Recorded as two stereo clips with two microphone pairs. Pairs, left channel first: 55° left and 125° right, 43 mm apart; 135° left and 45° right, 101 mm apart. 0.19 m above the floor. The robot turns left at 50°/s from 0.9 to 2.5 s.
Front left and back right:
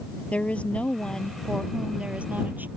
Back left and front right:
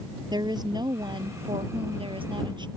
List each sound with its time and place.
0.3 s a woman speaking: straight ahead; by 2.7 s 80° right